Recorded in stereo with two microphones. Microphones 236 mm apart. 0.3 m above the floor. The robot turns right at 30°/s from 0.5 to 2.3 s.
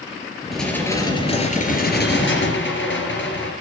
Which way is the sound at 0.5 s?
Straight ahead.